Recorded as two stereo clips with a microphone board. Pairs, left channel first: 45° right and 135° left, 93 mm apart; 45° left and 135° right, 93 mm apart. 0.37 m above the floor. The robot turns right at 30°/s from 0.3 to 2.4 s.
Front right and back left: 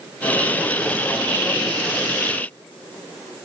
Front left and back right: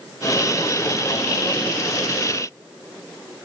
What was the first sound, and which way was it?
Only background noise.